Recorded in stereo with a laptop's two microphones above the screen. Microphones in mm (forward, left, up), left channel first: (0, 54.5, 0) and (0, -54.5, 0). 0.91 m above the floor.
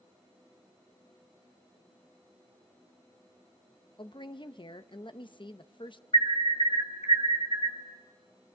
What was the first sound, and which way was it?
A woman speaking, 50° left (ahead or behind).